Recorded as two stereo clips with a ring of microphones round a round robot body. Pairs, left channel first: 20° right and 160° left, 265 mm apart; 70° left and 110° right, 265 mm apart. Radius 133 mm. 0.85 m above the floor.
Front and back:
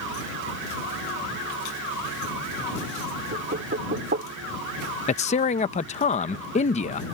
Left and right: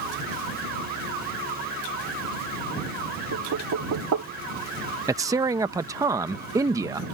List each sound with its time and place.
3.3 s knocking: 145° right
5.1 s a man speaking: 50° right